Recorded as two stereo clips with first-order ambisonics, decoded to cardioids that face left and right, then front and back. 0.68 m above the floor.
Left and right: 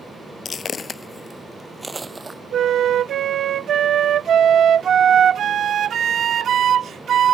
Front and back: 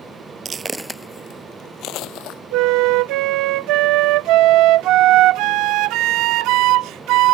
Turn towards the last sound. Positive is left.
turn(degrees=-150)